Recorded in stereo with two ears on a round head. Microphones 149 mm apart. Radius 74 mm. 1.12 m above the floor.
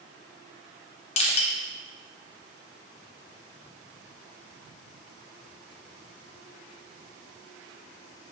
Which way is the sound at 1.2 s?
35° left (ahead or behind).